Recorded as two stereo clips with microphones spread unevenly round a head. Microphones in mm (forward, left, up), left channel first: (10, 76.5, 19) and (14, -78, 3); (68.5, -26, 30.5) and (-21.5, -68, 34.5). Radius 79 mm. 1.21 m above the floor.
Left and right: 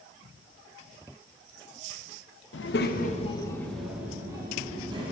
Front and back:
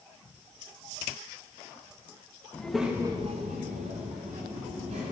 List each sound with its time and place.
2.5 s a child speaking: 105° left, 1.1 m; by 5.1 s 150° right, 2 m